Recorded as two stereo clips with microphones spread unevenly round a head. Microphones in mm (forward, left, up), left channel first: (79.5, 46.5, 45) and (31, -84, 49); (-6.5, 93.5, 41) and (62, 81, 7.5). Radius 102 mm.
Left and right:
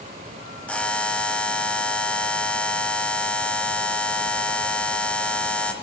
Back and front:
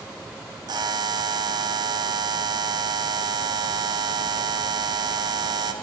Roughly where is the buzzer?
Ahead.